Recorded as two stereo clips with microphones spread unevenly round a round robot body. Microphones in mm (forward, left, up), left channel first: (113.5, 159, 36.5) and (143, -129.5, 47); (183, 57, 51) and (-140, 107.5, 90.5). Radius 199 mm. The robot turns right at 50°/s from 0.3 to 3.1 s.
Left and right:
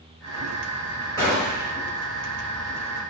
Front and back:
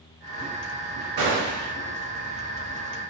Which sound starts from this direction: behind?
A gunshot, at 1.2 s.